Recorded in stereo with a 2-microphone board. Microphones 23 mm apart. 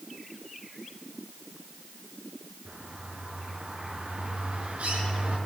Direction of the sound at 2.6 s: 85° right.